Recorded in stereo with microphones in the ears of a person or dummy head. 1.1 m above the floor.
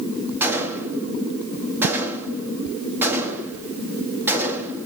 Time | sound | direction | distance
0.4 | a gunshot | 10° right (ahead or behind) | 1.9 m